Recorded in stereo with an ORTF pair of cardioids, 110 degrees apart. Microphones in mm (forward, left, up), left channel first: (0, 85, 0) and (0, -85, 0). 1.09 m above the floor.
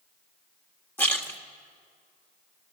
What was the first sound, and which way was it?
A splash, 10° left.